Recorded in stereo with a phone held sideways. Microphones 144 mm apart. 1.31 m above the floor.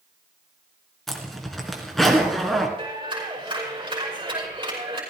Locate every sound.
1.1 s a zipper: centre (ahead or behind), 2.5 m
2.8 s a clap: 30° right (ahead or behind), 6 m